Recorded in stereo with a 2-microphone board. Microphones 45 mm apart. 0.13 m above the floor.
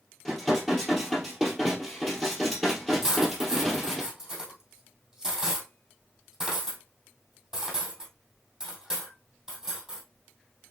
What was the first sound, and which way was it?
Dishes clattering, 5° left (ahead or behind).